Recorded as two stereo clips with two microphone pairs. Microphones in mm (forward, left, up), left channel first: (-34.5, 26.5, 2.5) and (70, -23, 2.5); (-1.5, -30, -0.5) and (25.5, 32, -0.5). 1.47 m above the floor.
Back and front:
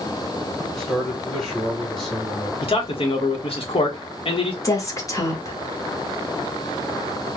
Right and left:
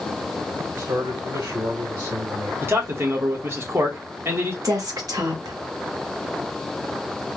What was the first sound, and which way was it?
A man speaking, 65° left.